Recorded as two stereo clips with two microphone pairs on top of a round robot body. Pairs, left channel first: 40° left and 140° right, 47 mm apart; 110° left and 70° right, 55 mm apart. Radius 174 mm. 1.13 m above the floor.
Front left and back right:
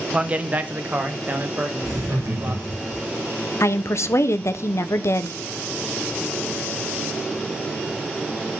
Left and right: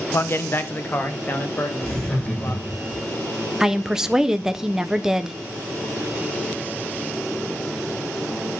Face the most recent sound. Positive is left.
turn(degrees=10)